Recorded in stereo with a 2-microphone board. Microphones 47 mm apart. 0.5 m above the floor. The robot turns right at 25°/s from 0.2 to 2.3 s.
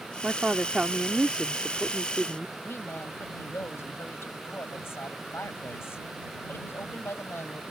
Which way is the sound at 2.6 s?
70° left (ahead or behind).